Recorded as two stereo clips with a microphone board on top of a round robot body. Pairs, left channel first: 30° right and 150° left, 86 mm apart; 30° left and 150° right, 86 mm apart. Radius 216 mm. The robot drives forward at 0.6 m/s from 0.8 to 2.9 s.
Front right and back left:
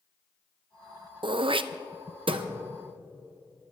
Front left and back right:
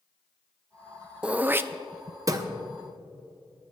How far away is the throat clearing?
About 0.6 m.